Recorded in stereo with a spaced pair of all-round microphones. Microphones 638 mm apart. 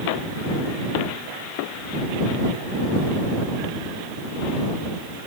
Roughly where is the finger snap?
I don't hear a finger snap.